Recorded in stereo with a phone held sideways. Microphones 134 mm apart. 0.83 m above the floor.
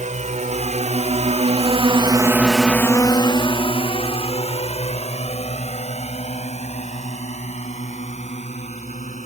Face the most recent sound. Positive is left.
turn(degrees=60)  # may be behind; listen again after turning